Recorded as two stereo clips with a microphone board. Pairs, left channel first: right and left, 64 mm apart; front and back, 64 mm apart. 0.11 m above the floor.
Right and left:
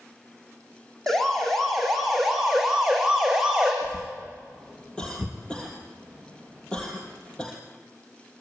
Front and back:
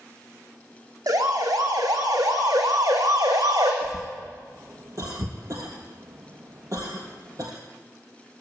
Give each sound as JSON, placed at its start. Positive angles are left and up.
{"t": 1.1, "sound": "a siren", "azimuth_deg": -175, "distance_m": 5.0}
{"t": 3.8, "sound": "a cough", "azimuth_deg": -160, "distance_m": 2.5}